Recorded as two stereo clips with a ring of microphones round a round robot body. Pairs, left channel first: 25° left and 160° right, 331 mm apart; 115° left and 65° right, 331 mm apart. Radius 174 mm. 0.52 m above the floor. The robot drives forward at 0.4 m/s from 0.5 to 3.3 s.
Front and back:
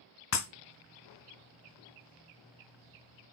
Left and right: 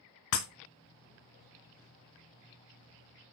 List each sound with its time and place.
0.3 s breaking glass: 75° left, 1.9 m